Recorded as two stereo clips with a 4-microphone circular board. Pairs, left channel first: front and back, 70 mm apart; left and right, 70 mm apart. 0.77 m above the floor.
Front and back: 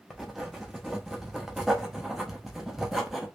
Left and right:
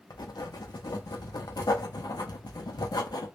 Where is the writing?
95° left, 0.6 m.